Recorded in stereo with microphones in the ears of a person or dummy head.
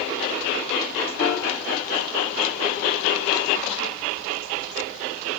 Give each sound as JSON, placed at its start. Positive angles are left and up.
{"t": 1.2, "sound": "a piano", "side_deg": 60, "distance_m": 1.4}